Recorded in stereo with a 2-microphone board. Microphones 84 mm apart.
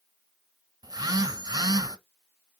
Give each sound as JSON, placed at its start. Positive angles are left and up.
{"t": 0.8, "sound": "a phone buzzing", "side_deg": -50, "distance_m": 0.6}